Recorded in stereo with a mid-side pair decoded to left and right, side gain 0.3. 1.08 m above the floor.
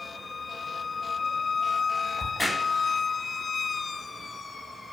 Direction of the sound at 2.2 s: 30° left.